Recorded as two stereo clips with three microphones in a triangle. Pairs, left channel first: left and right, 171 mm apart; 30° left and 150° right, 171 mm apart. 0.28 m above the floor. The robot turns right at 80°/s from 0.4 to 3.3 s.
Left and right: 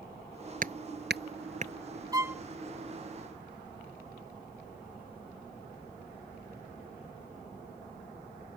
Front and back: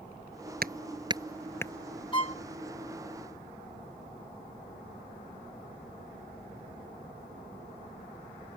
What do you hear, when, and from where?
0.6 s hammering: 125° right; by 1.7 s 35° right
2.1 s a violin: 25° right; by 2.4 s 5° right